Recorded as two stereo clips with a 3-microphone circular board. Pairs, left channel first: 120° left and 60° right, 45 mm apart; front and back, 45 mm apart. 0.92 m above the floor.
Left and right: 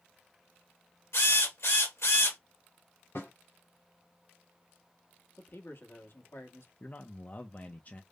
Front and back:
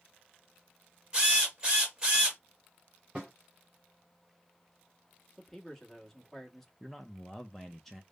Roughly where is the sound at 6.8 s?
Left.